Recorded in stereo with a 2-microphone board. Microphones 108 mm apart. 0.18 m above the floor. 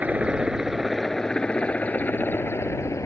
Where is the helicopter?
15° right (ahead or behind); by 3.1 s 30° left (ahead or behind).